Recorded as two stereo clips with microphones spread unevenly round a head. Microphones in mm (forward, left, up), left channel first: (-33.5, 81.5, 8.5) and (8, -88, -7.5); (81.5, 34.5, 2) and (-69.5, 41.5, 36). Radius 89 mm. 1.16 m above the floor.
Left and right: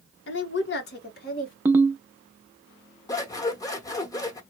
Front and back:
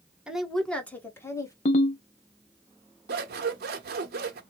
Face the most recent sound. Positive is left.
turn(degrees=175)